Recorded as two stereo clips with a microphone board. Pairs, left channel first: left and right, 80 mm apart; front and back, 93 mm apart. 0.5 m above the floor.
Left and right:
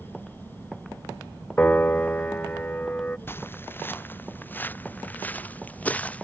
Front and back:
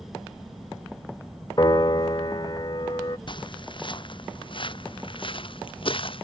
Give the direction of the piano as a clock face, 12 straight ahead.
11 o'clock.